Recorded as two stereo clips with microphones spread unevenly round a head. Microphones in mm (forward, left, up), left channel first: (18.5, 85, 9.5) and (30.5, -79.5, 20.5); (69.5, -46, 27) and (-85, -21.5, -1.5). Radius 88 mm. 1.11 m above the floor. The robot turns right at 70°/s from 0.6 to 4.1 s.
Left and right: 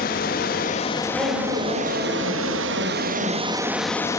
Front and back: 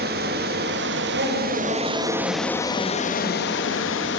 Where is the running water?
135° left, 1.3 m; by 4.2 s 20° left, 1.3 m.